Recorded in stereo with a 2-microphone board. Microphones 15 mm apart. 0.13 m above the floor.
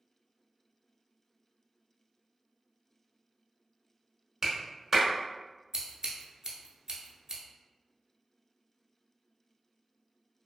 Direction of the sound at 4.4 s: 20° right (ahead or behind).